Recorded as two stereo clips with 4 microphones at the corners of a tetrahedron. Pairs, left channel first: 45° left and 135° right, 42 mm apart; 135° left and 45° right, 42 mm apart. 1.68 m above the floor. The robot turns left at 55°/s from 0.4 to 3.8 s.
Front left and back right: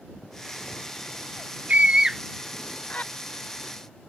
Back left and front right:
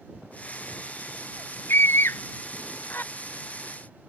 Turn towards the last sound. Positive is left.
turn(degrees=50)